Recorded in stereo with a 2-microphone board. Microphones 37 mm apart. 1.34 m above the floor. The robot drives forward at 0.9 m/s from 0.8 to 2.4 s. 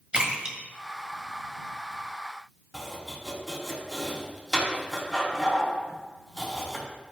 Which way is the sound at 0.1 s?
30° right (ahead or behind).